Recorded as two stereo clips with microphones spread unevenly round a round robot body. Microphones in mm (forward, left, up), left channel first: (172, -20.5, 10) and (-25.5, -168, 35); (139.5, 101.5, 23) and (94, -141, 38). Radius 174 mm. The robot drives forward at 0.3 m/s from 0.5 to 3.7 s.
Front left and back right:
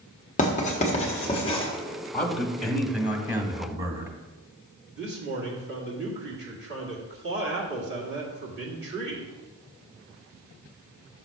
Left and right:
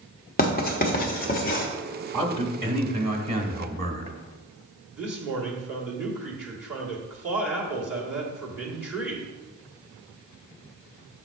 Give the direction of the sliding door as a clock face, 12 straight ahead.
I don't hear a sliding door.